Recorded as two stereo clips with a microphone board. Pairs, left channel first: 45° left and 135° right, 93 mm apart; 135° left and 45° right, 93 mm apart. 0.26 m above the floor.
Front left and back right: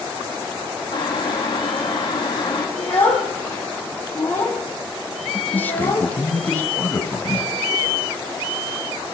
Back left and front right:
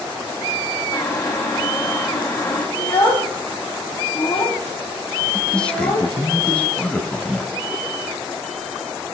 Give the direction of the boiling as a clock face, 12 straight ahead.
9 o'clock.